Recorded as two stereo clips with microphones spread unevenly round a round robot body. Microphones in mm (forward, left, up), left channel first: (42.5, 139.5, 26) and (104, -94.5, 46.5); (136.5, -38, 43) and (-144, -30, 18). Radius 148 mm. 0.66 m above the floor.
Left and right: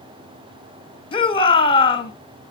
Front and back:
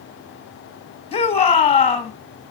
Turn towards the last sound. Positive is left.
turn(degrees=60)